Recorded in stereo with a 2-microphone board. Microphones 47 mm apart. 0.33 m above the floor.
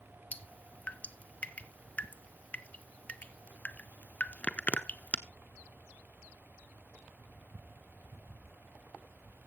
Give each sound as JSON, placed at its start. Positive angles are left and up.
{"t": 0.3, "sound": "dripping", "side_deg": 30, "distance_m": 0.6}